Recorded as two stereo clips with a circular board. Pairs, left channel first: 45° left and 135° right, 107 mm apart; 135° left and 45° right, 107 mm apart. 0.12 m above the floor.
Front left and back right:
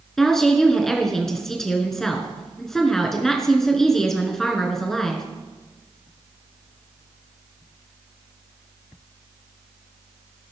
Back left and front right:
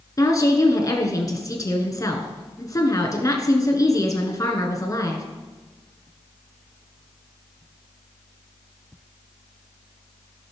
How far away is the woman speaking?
About 1.5 m.